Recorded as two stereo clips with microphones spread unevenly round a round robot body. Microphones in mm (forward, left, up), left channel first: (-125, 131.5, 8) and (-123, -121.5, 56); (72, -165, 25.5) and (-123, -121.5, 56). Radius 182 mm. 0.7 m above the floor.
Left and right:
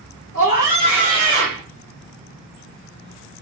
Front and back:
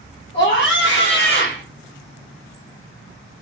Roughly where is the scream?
Ahead.